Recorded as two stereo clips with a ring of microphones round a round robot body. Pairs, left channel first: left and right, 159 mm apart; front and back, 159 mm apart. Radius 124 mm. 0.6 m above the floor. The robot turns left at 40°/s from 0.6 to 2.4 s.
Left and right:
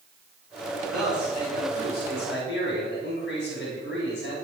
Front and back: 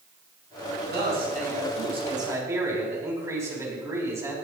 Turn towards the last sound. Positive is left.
turn(degrees=110)